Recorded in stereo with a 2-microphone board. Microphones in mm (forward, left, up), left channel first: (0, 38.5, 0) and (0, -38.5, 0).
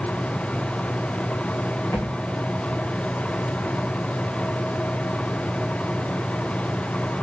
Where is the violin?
No violin in this recording.